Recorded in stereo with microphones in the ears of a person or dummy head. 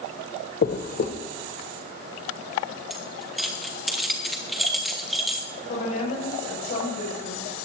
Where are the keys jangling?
Centre (ahead or behind), 1.3 m.